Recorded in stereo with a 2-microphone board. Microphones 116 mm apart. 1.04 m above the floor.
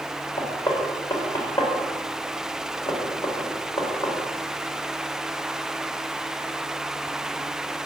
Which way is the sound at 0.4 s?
35° left (ahead or behind).